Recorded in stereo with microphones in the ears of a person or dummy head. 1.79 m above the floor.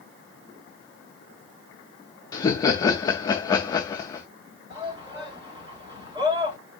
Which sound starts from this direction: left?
Laughter, at 2.3 s.